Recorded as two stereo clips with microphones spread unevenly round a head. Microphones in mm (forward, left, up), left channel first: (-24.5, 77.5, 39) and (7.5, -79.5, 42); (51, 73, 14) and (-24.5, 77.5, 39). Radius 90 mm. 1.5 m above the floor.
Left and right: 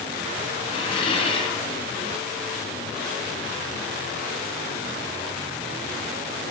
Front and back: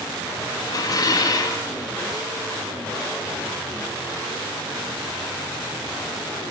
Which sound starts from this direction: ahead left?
Dishes clattering, at 0.7 s.